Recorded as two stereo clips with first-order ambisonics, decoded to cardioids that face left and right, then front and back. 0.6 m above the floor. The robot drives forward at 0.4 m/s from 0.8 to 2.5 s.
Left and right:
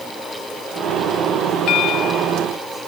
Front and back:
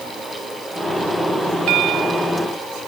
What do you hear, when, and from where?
1.7 s a bell: 140° left